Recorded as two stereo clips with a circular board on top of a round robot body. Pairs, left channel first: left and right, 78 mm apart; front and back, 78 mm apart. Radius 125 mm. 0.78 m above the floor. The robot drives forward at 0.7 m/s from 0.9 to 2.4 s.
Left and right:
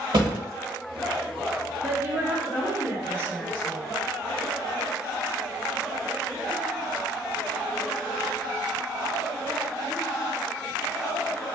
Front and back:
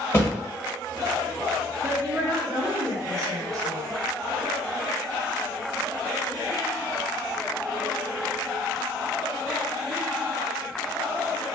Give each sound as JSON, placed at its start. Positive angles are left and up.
{"t": 0.1, "sound": "a thud", "azimuth_deg": -60, "distance_m": 1.1}
{"t": 1.8, "sound": "a woman speaking", "azimuth_deg": -130, "distance_m": 0.8}